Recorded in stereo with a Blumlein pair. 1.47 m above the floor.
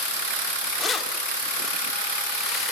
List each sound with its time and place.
0.8 s keys jangling: 20° left, 2.5 m; by 2.7 s 10° left, 3.5 m